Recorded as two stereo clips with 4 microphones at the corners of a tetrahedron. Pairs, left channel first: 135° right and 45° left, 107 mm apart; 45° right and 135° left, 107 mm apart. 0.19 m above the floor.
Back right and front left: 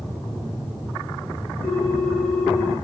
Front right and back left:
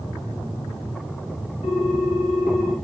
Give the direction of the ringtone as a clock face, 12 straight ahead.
2 o'clock.